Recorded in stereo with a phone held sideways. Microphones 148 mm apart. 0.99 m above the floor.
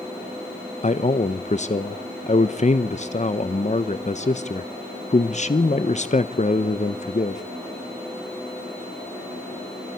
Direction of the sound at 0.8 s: 50° left (ahead or behind).